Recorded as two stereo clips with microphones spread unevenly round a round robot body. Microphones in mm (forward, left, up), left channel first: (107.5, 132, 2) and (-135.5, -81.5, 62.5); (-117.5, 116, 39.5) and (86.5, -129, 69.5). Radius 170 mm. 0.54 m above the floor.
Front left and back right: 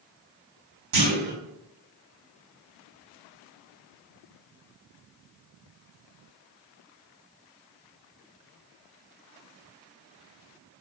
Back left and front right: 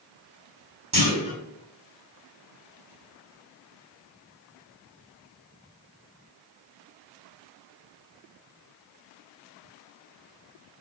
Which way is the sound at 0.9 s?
120° right.